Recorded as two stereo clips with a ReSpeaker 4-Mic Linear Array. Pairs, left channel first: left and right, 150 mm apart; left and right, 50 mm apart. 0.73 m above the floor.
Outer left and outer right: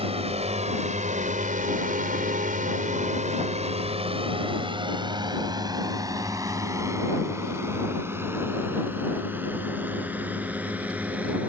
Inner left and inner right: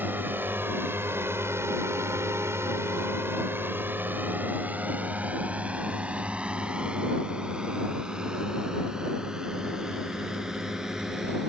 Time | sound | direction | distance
0.0 | a drone | 40° right (ahead or behind) | ?